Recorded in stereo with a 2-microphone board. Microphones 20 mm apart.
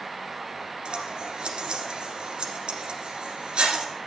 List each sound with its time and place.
0.8 s scissors: 55° right (ahead or behind), 2 m